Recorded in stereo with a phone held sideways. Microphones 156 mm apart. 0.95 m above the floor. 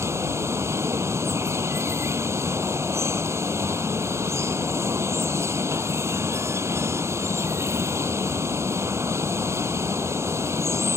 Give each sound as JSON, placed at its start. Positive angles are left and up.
{"t": 0.0, "sound": "running water", "side_deg": -15}